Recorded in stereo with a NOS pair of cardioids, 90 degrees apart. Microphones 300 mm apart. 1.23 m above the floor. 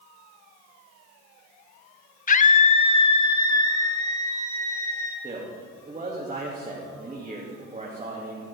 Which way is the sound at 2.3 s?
25° left.